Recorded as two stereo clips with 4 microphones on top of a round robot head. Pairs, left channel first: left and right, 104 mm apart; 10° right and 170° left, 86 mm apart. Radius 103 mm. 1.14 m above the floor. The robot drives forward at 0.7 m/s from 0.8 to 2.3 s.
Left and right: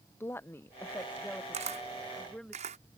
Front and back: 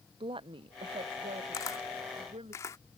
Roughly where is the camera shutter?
Ahead right.